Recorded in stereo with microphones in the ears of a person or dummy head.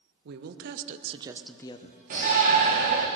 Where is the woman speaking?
60° right (ahead or behind), 1.3 m; by 3.0 s 70° left (ahead or behind), 1.6 m.